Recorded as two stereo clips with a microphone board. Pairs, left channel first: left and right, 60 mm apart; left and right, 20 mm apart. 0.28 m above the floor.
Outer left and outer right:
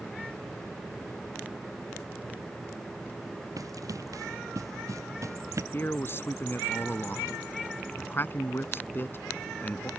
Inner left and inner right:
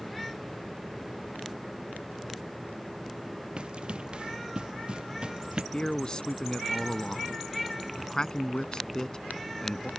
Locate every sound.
3.6 s running footsteps: 65° right (ahead or behind); by 5.6 s 55° right (ahead or behind)
5.7 s a man speaking: 40° left (ahead or behind)